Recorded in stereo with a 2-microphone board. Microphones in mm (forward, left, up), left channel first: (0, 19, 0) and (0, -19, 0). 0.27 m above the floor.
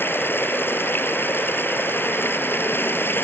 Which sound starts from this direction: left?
Running water, at 0.0 s.